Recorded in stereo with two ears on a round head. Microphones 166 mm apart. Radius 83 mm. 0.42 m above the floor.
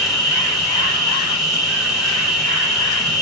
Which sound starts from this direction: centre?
An insect, at 0.0 s.